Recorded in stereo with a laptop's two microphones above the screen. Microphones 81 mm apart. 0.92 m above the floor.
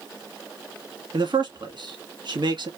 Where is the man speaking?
70° right (ahead or behind), 1.5 m.